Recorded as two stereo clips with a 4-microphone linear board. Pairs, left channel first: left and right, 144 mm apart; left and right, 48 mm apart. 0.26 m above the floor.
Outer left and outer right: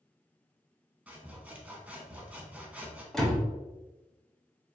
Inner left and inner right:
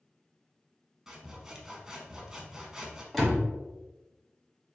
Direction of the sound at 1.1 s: 10° right (ahead or behind).